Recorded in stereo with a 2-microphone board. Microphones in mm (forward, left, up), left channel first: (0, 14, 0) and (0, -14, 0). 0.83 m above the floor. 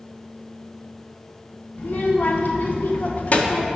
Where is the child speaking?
65° left (ahead or behind), 1.4 m; by 3.7 s 35° left (ahead or behind), 1.1 m.